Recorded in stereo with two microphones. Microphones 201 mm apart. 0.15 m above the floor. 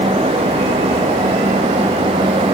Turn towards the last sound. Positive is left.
No sound to turn to.